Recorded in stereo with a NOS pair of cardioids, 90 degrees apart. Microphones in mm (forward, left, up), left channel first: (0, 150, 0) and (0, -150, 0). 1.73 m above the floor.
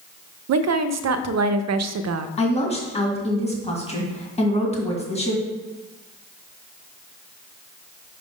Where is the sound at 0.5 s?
60° right, 0.5 m.